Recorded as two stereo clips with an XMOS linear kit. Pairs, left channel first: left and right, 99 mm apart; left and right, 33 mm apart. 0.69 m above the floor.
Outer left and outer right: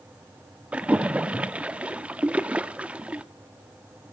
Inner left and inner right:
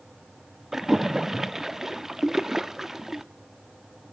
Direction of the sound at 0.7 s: 15° right (ahead or behind).